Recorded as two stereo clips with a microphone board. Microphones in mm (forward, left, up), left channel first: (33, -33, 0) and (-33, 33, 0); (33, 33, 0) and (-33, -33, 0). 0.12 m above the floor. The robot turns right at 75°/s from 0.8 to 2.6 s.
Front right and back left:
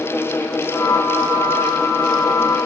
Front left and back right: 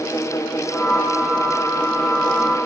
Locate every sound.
Only background noise.